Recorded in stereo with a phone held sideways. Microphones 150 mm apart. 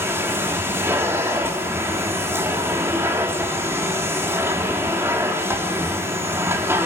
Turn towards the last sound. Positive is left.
turn(degrees=-15)  # may be behind; listen again after turning